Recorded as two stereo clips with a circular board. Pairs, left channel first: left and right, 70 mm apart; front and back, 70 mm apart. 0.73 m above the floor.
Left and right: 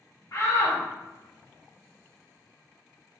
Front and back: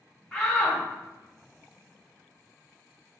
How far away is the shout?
About 1.9 m.